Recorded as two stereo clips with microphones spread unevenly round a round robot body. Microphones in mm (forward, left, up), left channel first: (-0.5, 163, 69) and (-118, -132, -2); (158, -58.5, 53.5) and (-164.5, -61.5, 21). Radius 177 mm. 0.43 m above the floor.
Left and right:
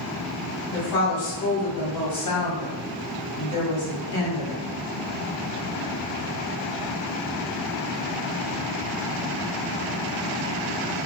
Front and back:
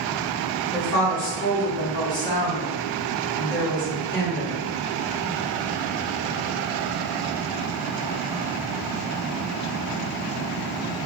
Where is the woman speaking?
65° left, 1.5 m.